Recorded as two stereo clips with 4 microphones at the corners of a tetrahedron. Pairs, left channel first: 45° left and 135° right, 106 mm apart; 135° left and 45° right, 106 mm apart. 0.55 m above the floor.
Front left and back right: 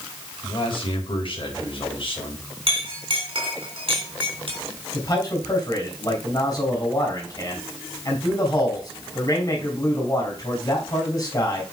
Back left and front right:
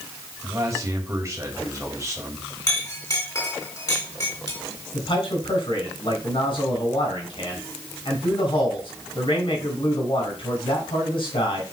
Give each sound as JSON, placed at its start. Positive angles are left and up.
{"t": 0.4, "sound": "a man speaking", "azimuth_deg": 15, "distance_m": 3.5}
{"t": 2.7, "sound": "a clink", "azimuth_deg": -170, "distance_m": 3.0}
{"t": 4.9, "sound": "a man speaking", "azimuth_deg": 105, "distance_m": 4.0}